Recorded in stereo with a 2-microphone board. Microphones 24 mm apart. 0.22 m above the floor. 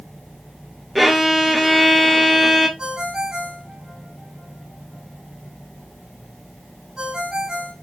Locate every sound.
0.9 s a violin: centre (ahead or behind), 0.6 m
2.8 s a ringtone: 30° right (ahead or behind), 1.3 m